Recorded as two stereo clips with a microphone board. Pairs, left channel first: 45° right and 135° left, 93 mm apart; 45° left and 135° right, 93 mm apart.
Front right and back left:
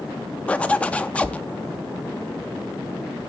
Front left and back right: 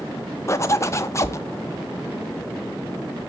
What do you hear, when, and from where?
0.5 s a zipper: 20° left, 0.5 m